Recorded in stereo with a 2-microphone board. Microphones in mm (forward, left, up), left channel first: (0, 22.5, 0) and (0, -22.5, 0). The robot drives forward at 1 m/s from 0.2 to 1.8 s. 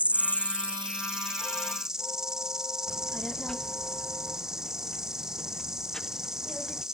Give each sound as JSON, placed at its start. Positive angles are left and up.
{"t": 0.0, "sound": "an insect", "side_deg": -30}
{"t": 2.9, "sound": "a child speaking", "side_deg": 15}